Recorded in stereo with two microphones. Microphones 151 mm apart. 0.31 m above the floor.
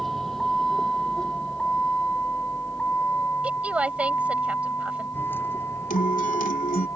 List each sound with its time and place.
0.0 s a vehicle: centre (ahead or behind); by 7.0 s 15° left (ahead or behind)
3.4 s a woman speaking: 10° right (ahead or behind)
5.9 s a guitar: 65° left (ahead or behind)